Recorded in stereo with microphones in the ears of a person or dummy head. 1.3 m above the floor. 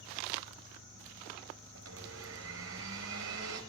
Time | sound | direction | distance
1.8 | a blender | 75° right (ahead or behind) | 5 m